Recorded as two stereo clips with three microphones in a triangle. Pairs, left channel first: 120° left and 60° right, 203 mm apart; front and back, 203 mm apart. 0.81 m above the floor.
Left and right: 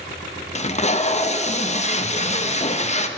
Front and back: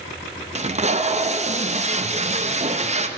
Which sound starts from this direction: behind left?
Tape being pulled, at 0.6 s.